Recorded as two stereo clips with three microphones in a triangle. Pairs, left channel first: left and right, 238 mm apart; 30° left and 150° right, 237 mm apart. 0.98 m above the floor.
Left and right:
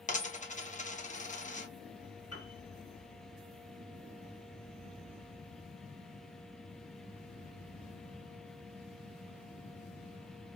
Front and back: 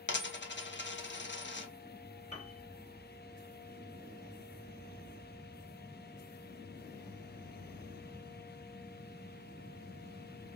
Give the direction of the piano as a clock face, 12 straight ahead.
9 o'clock.